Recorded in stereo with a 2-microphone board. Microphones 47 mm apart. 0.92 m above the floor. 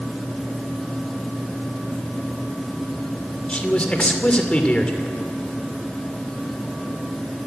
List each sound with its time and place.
3.5 s a man speaking: 25° left (ahead or behind), 2.5 m